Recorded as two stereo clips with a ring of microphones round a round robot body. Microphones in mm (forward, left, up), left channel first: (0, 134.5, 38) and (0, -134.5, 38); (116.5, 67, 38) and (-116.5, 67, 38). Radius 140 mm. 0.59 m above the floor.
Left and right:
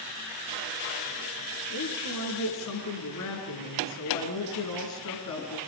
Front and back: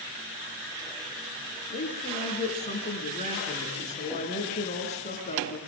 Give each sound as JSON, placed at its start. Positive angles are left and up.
{"t": 1.7, "sound": "a woman speaking", "azimuth_deg": 60, "distance_m": 7.0}